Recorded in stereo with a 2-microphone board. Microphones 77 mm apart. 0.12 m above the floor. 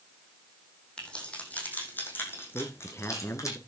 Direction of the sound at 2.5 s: 30° left (ahead or behind).